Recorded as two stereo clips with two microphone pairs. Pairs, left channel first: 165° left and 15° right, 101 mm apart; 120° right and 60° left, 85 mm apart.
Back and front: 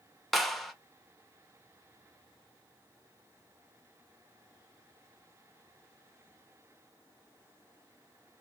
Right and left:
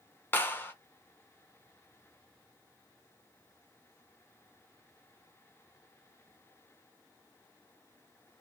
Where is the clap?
115° right, 0.7 m.